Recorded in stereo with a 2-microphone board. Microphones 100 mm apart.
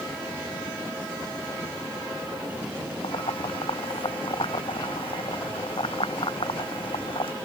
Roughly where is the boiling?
Left.